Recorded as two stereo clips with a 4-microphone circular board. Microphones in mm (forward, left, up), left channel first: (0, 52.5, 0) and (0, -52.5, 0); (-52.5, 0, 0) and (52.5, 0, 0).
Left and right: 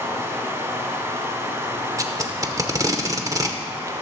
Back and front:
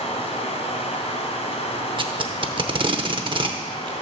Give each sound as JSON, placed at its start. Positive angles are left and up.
{"t": 0.0, "sound": "running water", "azimuth_deg": -160, "distance_m": 1.3}
{"t": 2.0, "sound": "tape being pulled", "azimuth_deg": -35, "distance_m": 0.7}